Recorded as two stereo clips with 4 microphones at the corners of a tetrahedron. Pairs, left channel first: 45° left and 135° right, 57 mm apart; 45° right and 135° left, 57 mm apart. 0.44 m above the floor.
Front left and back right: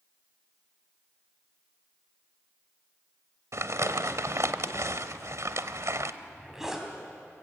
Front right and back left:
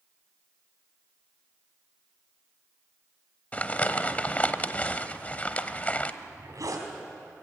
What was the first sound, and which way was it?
Crumpling, 110° right.